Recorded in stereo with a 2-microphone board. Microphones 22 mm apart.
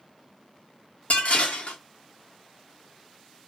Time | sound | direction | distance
1.1 | dishes clattering | 70° left (ahead or behind) | 0.7 m